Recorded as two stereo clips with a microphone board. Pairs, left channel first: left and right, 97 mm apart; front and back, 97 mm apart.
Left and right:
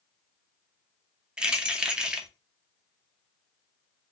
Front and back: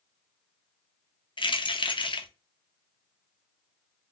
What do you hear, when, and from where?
1.4 s keys jangling: 10° right, 0.7 m